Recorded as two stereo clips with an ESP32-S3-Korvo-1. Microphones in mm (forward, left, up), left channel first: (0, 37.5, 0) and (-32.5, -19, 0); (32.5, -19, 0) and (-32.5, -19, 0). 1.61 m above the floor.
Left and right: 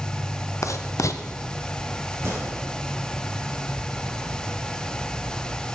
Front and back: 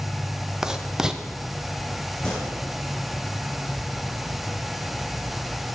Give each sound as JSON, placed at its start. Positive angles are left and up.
{"t": 0.6, "sound": "writing", "azimuth_deg": 100, "distance_m": 0.6}
{"t": 2.2, "sound": "a gunshot", "azimuth_deg": -75, "distance_m": 5.0}